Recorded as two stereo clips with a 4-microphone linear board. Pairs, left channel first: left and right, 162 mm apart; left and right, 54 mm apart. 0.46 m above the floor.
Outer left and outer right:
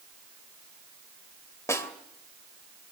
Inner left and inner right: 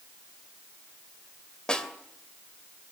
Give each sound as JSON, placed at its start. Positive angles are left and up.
{"t": 1.7, "sound": "a snare drum", "side_deg": 20, "distance_m": 2.5}